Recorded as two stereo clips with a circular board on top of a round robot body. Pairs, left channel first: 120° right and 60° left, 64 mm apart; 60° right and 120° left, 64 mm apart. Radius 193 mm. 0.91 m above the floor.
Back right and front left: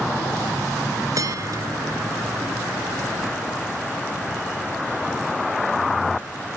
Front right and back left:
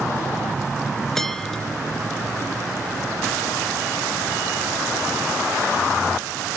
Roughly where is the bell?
Ahead left.